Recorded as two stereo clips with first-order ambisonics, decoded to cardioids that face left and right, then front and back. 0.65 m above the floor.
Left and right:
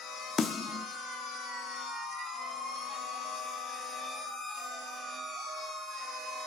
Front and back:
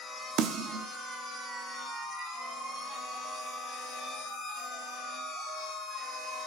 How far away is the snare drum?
About 0.9 m.